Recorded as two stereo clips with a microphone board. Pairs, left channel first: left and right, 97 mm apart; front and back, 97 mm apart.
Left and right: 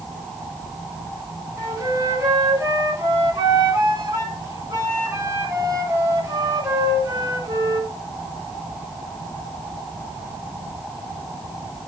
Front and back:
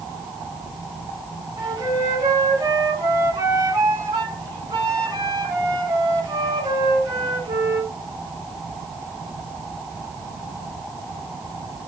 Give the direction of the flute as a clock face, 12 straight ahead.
5 o'clock.